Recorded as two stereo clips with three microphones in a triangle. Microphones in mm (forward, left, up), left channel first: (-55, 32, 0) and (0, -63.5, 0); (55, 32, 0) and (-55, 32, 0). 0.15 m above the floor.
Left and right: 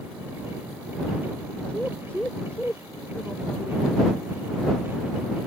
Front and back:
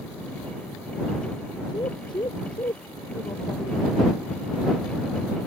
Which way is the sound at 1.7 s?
45° left.